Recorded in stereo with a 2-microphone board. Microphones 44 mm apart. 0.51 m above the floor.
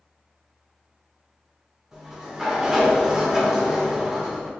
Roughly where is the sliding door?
Centre.